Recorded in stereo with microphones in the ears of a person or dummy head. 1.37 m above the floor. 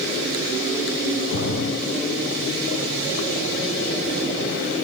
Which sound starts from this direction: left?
A splash, at 1.3 s.